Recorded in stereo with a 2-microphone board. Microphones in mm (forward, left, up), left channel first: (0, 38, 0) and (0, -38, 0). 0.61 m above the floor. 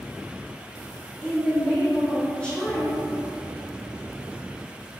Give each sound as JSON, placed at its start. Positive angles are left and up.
{"t": 1.2, "sound": "a woman speaking", "side_deg": 15, "distance_m": 1.4}